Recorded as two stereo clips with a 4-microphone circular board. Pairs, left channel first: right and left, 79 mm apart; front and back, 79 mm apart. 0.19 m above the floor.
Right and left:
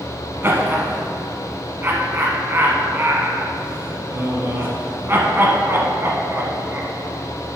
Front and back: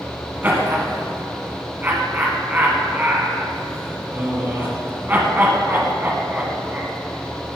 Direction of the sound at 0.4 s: 130° left.